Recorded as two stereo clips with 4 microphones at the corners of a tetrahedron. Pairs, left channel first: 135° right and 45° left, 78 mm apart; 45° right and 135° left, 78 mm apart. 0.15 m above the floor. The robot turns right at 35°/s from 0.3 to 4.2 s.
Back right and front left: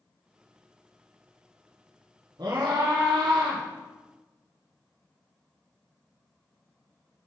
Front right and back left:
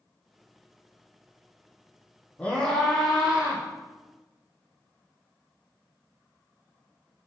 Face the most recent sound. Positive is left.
turn(degrees=90)